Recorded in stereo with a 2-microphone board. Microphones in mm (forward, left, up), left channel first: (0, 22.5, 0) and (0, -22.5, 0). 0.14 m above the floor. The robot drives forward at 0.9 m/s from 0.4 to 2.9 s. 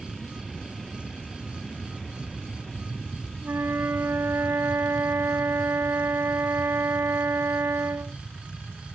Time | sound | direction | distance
0.0 | an aircraft | 5° left (ahead or behind) | ?
3.4 | a flute | 60° right (ahead or behind) | ?